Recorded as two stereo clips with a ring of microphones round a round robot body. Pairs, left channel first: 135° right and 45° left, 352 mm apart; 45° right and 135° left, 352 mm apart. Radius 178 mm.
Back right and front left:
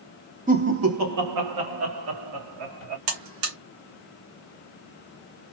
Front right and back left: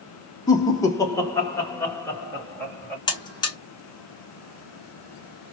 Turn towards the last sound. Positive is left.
turn(degrees=30)